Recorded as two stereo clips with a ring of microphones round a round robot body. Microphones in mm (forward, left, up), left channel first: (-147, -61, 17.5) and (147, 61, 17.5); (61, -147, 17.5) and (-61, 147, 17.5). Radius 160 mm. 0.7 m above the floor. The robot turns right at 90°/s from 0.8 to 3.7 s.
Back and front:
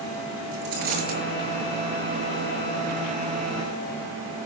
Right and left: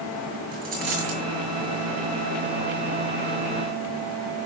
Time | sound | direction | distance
0.5 | a dropped coin | 50° left | 6.5 m